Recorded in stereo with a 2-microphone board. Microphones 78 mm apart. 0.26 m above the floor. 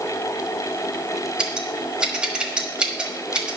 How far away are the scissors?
About 1.3 m.